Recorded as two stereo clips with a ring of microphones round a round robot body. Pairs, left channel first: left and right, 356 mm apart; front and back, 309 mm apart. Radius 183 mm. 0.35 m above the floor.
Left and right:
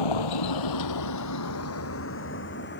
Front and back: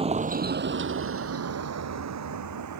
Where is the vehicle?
110° left; by 2.8 s 150° left.